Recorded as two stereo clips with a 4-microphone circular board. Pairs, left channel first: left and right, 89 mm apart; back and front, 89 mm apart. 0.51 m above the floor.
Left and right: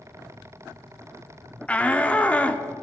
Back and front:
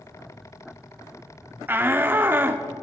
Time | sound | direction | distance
1.7 | a shout | 35° left | 0.7 m